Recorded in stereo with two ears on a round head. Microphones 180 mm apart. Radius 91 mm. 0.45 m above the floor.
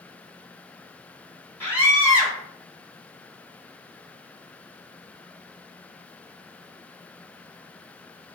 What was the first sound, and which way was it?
A scream, 10° left (ahead or behind).